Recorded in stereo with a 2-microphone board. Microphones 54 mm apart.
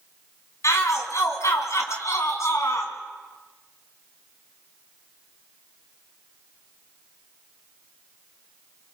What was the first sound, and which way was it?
A shout, 70° left (ahead or behind).